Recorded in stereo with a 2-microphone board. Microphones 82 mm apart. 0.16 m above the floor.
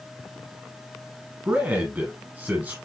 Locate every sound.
1.4 s a man speaking: 20° right (ahead or behind), 1.5 m